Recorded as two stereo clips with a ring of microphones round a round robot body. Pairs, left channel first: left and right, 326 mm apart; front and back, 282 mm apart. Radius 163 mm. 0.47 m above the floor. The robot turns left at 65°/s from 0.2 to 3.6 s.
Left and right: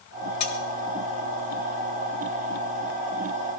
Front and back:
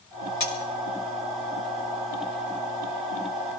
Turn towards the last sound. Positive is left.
turn(degrees=-165)